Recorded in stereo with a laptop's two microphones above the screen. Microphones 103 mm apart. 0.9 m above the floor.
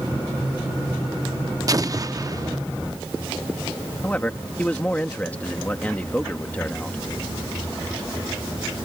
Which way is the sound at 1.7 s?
35° right (ahead or behind).